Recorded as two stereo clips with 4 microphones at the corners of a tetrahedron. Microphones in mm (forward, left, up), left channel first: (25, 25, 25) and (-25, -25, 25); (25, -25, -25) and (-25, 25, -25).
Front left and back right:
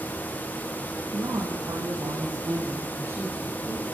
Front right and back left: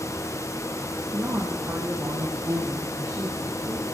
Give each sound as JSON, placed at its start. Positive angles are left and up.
{"t": 1.1, "sound": "a woman speaking", "azimuth_deg": -170, "distance_m": 8.5}